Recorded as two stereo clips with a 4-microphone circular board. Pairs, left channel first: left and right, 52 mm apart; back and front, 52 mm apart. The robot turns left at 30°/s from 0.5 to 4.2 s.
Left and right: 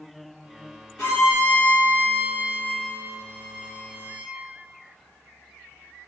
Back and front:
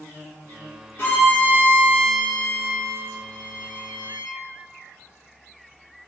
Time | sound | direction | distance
1.0 | a violin | straight behind | 1.8 m